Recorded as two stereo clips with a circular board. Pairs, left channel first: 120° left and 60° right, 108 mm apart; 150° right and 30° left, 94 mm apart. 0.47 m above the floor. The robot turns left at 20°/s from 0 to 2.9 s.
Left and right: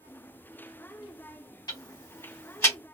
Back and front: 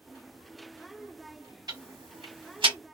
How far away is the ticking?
About 1.9 m.